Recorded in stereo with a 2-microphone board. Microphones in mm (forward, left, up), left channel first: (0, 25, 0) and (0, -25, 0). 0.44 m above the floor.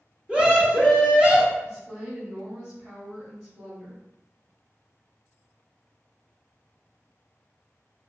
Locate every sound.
0.3 s a scream: 20° right (ahead or behind), 0.7 m
1.6 s a woman speaking: 15° right (ahead or behind), 1.4 m